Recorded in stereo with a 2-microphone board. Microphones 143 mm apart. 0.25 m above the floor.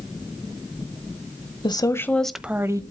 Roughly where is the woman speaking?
Left.